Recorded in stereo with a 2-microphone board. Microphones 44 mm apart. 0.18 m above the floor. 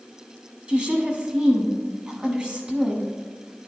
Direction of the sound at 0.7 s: 25° right (ahead or behind).